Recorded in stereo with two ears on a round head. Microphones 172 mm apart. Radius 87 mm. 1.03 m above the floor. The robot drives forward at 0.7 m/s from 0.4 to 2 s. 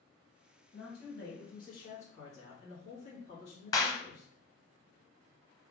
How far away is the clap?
About 0.5 m.